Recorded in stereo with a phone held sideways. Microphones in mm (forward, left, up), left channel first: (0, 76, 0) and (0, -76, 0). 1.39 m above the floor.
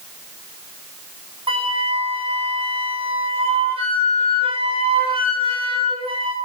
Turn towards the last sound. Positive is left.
turn(degrees=-35)  # may be behind; listen again after turning